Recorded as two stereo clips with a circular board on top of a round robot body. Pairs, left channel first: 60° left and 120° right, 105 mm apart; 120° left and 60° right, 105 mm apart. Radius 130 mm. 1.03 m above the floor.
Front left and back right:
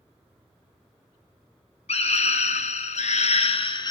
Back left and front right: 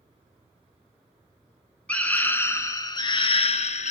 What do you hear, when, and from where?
1.9 s a scream: 40° left, 1.2 m; by 3.9 s 110° left, 0.7 m